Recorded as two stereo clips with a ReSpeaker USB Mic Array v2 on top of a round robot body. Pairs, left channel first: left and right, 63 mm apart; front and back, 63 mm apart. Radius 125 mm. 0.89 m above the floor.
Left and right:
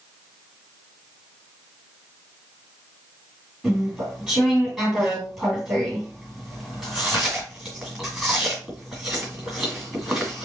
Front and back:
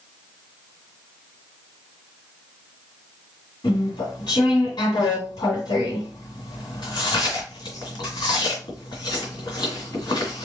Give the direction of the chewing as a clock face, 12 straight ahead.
12 o'clock.